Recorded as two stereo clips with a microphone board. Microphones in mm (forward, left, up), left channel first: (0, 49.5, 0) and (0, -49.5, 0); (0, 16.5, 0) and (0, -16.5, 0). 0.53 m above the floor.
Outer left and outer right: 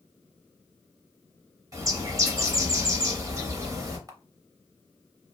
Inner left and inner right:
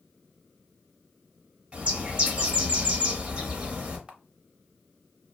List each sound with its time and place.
1.7 s a bird: 35° right (ahead or behind), 0.8 m
4.1 s a camera shutter: 35° right (ahead or behind), 0.5 m